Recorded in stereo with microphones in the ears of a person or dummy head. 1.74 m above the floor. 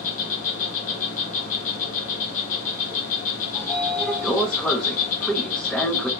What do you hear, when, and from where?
0.0 s an insect: 45° left (ahead or behind), 1.1 m
3.5 s a sliding door: 5° left (ahead or behind), 0.6 m